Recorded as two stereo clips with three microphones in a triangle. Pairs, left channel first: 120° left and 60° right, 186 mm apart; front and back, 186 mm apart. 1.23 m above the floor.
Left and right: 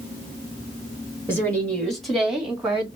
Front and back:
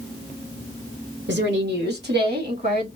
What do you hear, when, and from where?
1.3 s a woman speaking: 165° right, 1.8 m; by 2.9 s 145° right, 2.5 m